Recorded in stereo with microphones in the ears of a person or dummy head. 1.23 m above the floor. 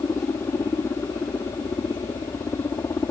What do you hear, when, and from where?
0.0 s a helicopter: 15° left (ahead or behind)